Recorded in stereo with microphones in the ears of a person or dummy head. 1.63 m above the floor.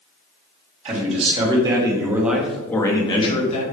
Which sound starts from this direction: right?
A man speaking, at 0.8 s.